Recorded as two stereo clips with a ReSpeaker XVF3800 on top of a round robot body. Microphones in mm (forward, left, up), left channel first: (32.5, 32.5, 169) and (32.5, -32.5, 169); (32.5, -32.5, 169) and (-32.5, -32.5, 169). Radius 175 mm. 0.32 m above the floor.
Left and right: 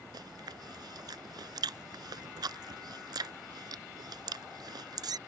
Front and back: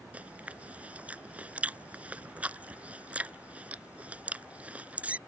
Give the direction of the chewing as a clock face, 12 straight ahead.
4 o'clock.